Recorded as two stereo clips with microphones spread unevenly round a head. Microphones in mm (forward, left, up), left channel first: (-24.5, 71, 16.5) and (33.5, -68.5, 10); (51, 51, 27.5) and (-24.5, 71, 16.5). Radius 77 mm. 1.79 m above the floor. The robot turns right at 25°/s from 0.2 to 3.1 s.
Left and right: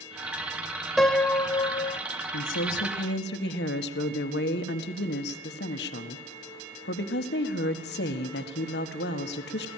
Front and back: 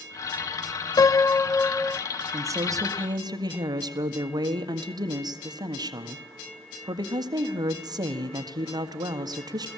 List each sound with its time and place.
1.0 s a piano: 25° left, 0.6 m; by 2.0 s 50° left, 0.6 m
2.3 s a woman speaking: 115° left, 1.7 m; by 9.7 s 135° left, 1.7 m